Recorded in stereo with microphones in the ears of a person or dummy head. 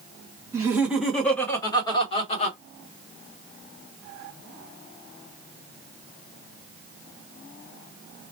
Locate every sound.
0.5 s laughter: 15° right (ahead or behind), 1.2 m; by 2.6 s 50° left (ahead or behind), 1.4 m